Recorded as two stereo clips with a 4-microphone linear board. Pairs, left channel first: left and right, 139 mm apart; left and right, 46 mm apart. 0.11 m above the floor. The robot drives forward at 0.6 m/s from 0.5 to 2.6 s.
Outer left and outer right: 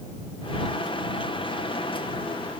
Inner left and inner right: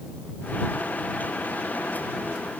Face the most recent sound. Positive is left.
No sound to turn to.